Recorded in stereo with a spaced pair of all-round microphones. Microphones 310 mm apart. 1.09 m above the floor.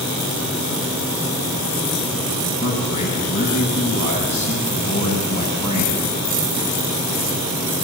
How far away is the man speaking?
About 7.5 m.